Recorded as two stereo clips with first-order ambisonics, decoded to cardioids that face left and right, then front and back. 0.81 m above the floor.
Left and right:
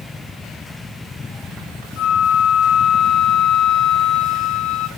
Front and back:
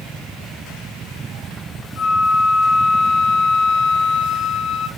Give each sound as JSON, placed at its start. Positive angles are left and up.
{"t": 2.0, "sound": "a flute", "azimuth_deg": 70, "distance_m": 1.6}